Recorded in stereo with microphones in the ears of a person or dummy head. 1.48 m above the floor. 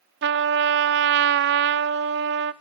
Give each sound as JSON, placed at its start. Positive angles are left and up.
{"t": 0.2, "sound": "a trumpet", "side_deg": -60, "distance_m": 0.6}